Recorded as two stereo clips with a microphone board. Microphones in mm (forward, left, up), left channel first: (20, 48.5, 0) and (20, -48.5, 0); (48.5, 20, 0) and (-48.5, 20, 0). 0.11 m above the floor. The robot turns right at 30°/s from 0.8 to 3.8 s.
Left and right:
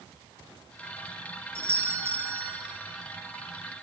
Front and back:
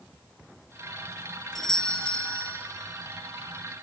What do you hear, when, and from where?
1.6 s a doorbell: 80° right, 1.6 m; by 2.6 s 50° right, 1.6 m